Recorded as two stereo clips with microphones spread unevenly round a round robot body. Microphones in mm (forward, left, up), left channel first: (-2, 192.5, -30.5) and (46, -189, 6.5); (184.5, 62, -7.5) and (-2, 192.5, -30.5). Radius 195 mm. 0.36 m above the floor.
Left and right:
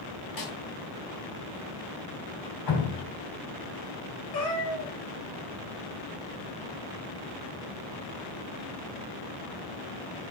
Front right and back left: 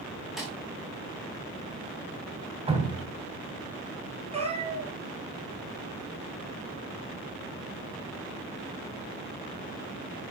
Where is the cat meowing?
80° left, 4 m.